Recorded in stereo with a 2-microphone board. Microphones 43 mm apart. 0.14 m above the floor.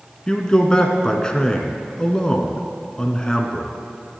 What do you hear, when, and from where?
0.3 s a man speaking: 15° left (ahead or behind), 1.6 m